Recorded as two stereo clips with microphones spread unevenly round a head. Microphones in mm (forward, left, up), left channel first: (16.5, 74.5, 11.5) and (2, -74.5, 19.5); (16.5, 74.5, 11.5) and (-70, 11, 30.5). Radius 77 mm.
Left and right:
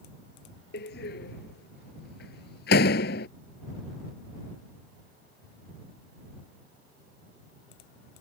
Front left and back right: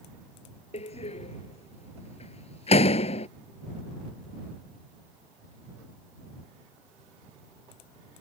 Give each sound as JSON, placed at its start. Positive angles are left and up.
{"t": 0.7, "sound": "a door slam", "azimuth_deg": 60}